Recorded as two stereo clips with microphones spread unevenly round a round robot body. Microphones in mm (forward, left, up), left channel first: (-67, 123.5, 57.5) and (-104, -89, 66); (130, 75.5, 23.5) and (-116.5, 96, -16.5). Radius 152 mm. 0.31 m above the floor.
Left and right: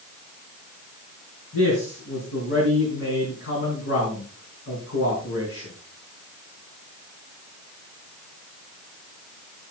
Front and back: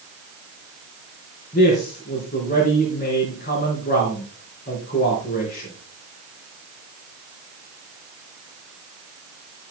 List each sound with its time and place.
1.5 s a man speaking: 50° left, 4.5 m